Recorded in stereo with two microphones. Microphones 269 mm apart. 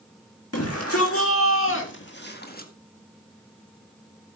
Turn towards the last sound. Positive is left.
turn(degrees=35)  # may be behind; listen again after turning